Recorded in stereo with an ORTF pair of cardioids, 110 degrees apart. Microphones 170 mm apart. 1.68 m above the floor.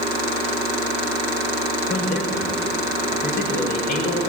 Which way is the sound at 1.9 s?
70° left.